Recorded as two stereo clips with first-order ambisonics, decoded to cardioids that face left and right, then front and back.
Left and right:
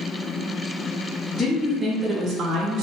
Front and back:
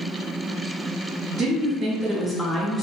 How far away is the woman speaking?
About 0.7 m.